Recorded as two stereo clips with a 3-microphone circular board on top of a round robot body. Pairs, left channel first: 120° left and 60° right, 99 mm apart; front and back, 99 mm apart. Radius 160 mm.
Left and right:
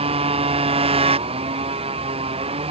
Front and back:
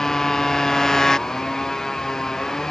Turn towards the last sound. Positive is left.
turn(degrees=-85)